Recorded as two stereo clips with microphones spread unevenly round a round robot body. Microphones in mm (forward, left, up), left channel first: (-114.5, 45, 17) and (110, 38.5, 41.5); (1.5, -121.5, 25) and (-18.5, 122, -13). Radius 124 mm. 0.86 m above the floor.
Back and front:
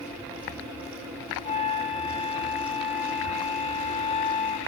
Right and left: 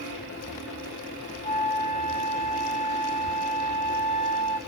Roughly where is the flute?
Ahead.